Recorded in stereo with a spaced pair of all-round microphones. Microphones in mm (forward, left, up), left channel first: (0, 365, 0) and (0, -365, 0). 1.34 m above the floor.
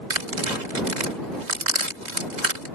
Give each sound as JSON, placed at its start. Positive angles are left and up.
{"t": 0.1, "sound": "tearing paper", "side_deg": -70}